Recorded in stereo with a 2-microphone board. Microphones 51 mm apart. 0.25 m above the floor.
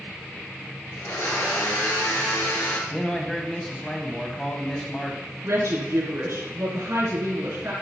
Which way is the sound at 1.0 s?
75° left (ahead or behind).